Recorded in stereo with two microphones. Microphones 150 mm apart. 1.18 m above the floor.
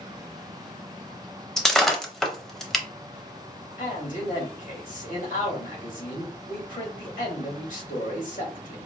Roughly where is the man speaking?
Left.